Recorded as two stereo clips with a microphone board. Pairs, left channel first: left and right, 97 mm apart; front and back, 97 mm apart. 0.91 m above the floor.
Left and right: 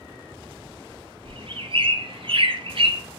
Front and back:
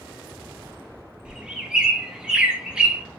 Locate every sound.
1.2 s a bird: 100° right, 0.5 m